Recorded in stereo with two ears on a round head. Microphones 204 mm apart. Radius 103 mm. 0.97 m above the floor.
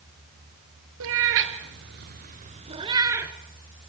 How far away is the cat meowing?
About 2.5 m.